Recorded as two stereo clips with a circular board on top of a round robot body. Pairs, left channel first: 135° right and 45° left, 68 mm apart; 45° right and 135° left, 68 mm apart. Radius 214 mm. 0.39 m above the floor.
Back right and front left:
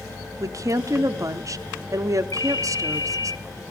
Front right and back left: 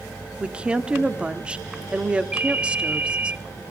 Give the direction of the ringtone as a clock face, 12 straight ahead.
5 o'clock.